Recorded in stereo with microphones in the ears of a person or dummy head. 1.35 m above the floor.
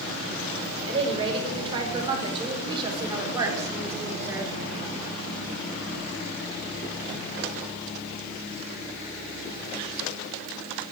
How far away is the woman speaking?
About 4.5 m.